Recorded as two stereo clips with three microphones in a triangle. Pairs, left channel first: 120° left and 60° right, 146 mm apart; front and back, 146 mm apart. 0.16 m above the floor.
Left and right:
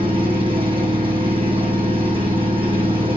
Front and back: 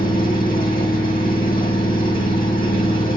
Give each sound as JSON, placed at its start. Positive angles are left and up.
{"t": 0.0, "sound": "an engine running", "azimuth_deg": -10, "distance_m": 5.0}